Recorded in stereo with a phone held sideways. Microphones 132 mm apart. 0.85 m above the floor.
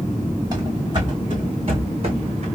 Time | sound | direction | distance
0.5 | running footsteps | 35° right (ahead or behind) | 3 m